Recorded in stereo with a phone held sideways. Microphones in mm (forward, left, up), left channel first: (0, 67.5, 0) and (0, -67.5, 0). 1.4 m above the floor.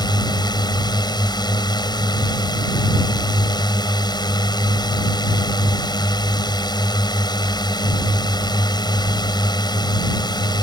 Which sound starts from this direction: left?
A drone, at 0.0 s.